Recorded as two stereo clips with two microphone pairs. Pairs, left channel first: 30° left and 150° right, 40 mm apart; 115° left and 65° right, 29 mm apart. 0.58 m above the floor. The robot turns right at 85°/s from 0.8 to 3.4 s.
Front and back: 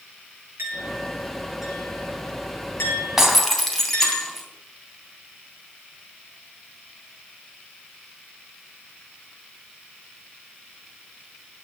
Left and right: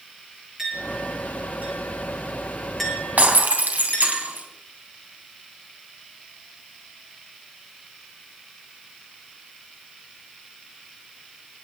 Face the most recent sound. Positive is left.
turn(degrees=-55)